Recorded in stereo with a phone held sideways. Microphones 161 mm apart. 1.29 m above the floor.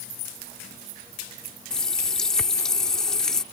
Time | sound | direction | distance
1.7 | a running tap | 5° left (ahead or behind) | ?